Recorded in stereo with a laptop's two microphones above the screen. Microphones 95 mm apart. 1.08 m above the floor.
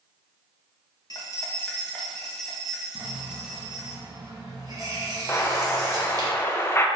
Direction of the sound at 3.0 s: 40° right (ahead or behind).